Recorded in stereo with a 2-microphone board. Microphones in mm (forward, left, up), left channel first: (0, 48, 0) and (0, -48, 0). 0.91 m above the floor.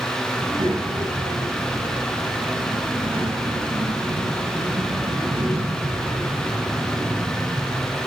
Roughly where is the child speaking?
Right.